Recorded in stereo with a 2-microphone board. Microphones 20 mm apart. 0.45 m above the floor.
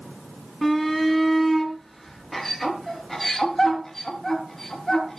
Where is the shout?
Centre (ahead or behind), 5.5 m; by 5.2 s 20° left (ahead or behind), 7.5 m.